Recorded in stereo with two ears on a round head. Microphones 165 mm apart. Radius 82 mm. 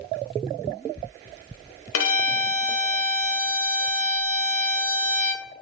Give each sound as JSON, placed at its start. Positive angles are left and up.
{"t": 1.9, "sound": "a violin", "side_deg": 85, "distance_m": 1.1}